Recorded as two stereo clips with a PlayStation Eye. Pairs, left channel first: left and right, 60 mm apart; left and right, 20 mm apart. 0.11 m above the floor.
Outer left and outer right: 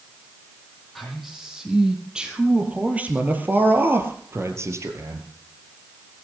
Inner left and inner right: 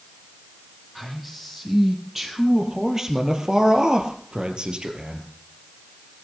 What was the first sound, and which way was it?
A man speaking, centre (ahead or behind).